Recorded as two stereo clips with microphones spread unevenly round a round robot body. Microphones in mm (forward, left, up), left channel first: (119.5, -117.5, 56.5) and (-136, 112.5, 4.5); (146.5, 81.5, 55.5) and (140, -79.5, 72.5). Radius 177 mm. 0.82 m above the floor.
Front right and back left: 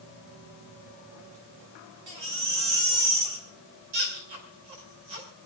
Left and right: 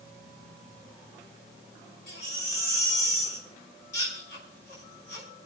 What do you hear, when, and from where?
2.1 s a baby crying: 115° left, 6 m